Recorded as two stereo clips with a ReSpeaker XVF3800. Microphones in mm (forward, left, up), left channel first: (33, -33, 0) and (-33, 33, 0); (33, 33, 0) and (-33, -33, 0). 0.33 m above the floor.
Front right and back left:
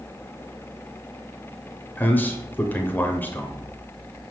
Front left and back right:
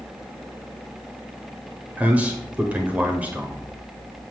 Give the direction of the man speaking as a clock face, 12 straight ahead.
3 o'clock.